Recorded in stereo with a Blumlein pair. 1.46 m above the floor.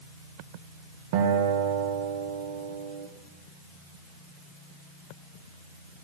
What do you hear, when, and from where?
1.1 s a guitar: 45° right, 1.3 m